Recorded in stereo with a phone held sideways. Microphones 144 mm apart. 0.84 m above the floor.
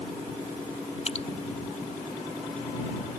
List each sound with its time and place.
1.1 s dripping: 45° left (ahead or behind)